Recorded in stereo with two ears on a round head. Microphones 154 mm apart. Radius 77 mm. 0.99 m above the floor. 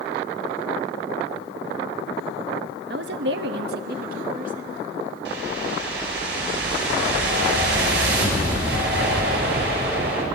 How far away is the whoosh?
About 5.5 m.